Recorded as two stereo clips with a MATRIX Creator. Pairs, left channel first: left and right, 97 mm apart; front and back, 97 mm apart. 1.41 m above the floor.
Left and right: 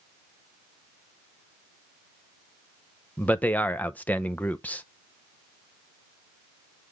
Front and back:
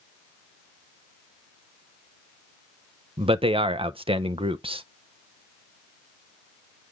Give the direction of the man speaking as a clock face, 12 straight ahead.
7 o'clock.